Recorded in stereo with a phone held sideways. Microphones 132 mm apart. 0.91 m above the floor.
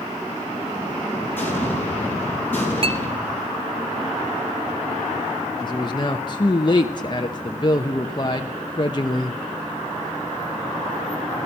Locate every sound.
1.4 s an explosion: 15° left (ahead or behind), 5.5 m
2.8 s a clink: 45° right (ahead or behind), 1.0 m
5.6 s a man speaking: 35° left (ahead or behind), 0.9 m